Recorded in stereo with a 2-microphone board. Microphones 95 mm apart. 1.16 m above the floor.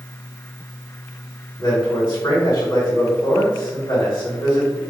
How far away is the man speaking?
About 1.9 m.